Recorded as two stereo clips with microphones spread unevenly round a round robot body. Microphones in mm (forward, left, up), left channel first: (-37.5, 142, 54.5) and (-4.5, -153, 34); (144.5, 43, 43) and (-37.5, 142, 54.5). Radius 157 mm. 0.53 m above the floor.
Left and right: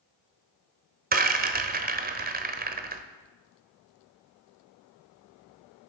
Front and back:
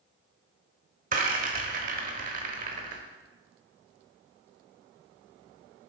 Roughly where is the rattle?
Behind right.